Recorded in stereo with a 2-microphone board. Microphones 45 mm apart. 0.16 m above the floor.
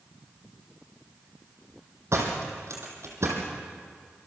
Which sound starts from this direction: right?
A door slam, at 2.1 s.